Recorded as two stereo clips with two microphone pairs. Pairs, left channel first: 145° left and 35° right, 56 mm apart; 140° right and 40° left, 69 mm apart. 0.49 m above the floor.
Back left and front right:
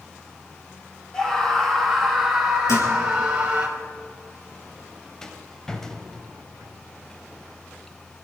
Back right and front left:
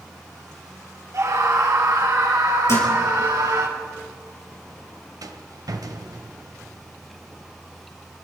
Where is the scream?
70° left, 2.5 m; by 3.7 s 30° left, 3 m.